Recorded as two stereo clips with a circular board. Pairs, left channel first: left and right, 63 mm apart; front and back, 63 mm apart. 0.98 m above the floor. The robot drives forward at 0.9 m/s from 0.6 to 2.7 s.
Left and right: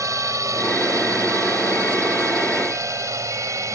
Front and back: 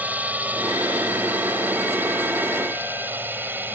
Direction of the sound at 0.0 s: 115° right.